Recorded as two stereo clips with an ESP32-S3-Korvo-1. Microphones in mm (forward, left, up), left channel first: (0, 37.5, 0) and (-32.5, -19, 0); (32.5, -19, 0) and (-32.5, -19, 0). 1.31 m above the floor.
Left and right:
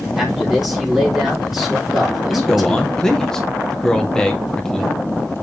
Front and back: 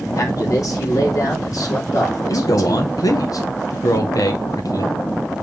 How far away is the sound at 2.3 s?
About 1.2 m.